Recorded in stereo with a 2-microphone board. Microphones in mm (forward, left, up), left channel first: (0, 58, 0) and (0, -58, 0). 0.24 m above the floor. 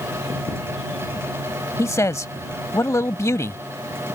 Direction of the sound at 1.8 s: 25° left (ahead or behind).